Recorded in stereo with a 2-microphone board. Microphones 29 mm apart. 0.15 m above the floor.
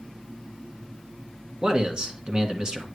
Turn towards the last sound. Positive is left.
turn(degrees=-30)  # may be behind; listen again after turning